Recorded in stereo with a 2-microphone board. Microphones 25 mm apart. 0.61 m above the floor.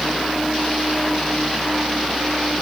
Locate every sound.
Only background noise.